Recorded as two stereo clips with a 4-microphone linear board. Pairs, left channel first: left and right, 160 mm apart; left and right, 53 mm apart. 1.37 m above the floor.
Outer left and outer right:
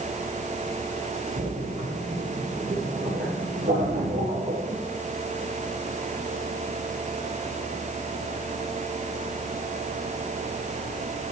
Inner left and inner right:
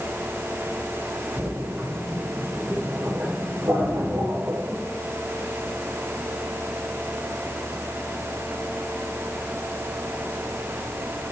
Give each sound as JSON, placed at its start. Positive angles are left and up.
{"t": 1.4, "sound": "a splash", "side_deg": -80, "distance_m": 7.5}